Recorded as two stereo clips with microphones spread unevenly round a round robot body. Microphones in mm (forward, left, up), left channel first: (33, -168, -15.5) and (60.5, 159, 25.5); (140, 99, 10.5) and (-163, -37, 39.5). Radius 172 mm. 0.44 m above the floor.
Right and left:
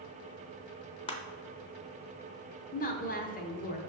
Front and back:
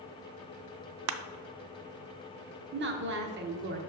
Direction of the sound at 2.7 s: 115° right.